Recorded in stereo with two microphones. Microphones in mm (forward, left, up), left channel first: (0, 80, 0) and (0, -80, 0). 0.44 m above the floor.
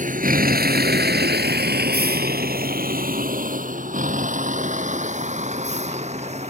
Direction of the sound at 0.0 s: 55° right (ahead or behind).